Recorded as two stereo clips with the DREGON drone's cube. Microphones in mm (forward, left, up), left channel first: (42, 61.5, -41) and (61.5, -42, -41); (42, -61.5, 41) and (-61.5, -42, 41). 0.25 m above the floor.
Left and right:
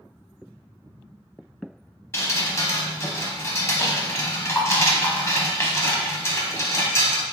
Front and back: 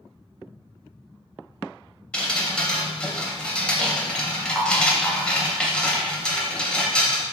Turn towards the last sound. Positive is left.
turn(degrees=60)